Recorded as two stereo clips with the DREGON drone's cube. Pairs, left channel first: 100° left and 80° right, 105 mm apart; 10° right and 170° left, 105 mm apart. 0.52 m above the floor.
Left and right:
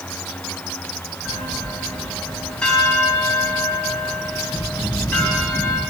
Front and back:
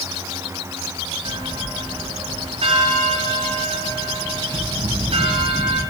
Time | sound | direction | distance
1.2 | a bell | straight behind | 2.5 m